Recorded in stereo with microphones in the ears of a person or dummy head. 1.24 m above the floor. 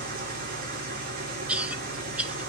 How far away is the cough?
About 1.4 m.